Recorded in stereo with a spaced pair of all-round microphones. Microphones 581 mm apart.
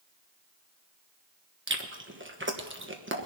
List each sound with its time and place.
1.7 s chewing: 20° right (ahead or behind), 1.3 m